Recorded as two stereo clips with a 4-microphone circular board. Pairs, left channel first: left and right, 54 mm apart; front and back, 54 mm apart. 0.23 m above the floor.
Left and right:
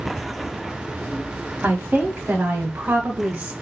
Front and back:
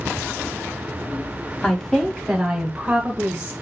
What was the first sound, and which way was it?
A woman speaking, 55° right.